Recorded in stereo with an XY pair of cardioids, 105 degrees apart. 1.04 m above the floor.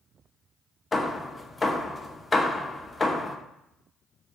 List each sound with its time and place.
0.9 s hammering: 25° left, 0.5 m